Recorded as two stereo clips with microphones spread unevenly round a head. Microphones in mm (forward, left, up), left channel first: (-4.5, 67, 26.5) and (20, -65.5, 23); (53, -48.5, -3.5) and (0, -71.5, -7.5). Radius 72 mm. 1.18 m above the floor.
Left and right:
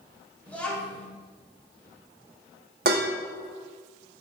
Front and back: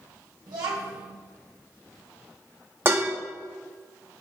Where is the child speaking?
Straight behind, 2.5 m.